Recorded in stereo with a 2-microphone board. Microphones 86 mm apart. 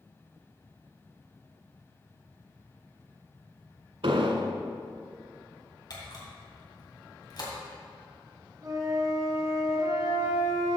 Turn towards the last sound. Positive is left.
turn(degrees=-40)  # may be behind; listen again after turning